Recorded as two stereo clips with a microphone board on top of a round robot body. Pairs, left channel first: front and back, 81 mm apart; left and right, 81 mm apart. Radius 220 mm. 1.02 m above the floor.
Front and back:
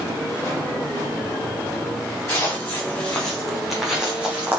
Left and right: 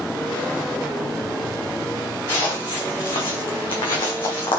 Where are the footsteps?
60° left, 3.5 m; by 4.6 s 115° left, 3 m.